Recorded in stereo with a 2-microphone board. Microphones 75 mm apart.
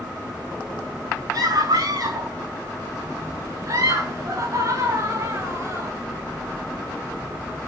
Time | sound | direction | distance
1.3 | a scream | 55° right (ahead or behind) | 7 m